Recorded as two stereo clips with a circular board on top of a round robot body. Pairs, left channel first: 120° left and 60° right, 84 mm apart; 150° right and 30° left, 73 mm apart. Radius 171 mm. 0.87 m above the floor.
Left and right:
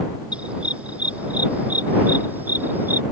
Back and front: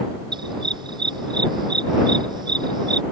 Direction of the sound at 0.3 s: 15° left.